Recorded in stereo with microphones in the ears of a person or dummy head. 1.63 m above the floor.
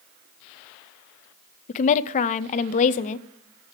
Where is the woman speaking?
35° left (ahead or behind), 0.5 m.